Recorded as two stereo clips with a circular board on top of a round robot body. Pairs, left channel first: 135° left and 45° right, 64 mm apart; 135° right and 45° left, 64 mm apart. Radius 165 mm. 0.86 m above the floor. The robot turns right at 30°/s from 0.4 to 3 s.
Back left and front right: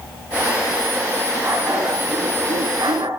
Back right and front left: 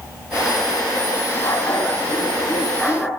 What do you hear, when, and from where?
1.4 s a dog barking: 95° right, 5 m; by 3.1 s 45° right, 5 m